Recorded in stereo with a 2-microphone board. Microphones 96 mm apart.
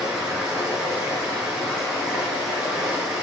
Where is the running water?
10° right (ahead or behind), 1.6 m.